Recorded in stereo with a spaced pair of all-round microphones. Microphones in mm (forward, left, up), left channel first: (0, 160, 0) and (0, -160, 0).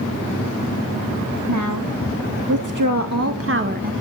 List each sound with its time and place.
1.5 s a woman speaking: 70° right (ahead or behind), 1.8 m; by 3.9 s 25° right (ahead or behind), 1.2 m